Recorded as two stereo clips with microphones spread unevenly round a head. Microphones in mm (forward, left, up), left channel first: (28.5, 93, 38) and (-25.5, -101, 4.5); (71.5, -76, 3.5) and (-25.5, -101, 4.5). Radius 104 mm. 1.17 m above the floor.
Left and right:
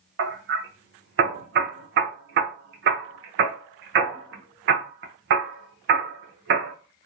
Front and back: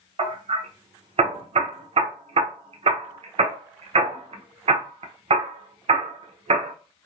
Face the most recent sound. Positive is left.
turn(degrees=-140)